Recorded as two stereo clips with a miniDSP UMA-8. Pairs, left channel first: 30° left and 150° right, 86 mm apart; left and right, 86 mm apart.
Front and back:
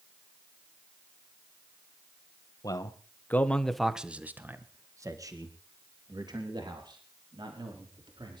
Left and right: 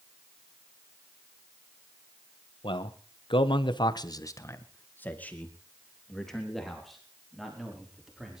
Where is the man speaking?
75° left, 1.6 m; by 8.4 s 175° right, 5 m.